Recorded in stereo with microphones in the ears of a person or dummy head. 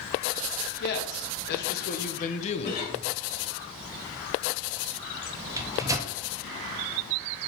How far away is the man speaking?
About 1.9 m.